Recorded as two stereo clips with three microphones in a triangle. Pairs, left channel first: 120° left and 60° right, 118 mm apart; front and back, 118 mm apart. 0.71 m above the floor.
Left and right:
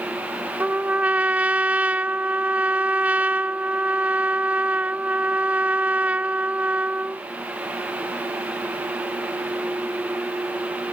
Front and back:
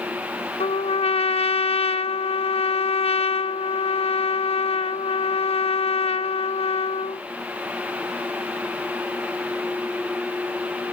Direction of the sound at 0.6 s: 15° left.